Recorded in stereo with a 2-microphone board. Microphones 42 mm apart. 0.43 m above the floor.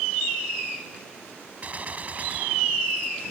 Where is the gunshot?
35° right (ahead or behind).